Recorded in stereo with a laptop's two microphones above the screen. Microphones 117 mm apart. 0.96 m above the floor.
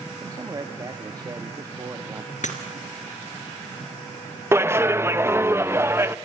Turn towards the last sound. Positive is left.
turn(degrees=-20)  # may be behind; listen again after turning